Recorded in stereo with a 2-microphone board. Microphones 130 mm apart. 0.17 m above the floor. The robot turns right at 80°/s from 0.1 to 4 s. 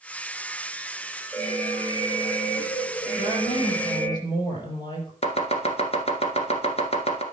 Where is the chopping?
50° left (ahead or behind), 1.6 m.